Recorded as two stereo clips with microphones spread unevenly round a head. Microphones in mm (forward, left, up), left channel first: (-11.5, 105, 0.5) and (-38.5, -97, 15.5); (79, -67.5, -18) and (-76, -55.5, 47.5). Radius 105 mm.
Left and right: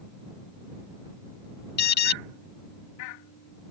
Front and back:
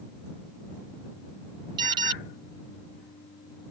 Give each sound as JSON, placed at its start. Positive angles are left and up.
{"t": 1.8, "sound": "an alarm", "azimuth_deg": 120}